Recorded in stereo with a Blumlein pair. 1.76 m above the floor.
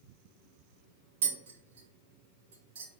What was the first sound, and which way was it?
Tapping, 55° right.